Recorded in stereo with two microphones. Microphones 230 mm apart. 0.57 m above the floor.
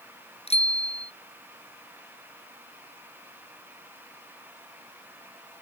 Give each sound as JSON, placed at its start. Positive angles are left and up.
{"t": 0.5, "sound": "a bicycle bell", "side_deg": 25}